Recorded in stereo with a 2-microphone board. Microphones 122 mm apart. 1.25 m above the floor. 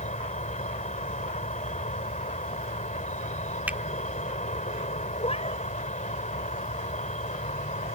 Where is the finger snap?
10° right (ahead or behind).